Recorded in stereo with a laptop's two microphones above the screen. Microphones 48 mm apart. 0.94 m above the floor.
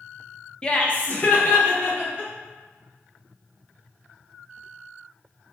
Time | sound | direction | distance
0.6 | laughter | 20° left (ahead or behind) | 0.5 m